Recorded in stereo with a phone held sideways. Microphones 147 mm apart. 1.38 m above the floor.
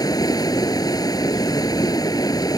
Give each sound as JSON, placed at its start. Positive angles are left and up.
{"t": 0.0, "sound": "running water", "side_deg": 25}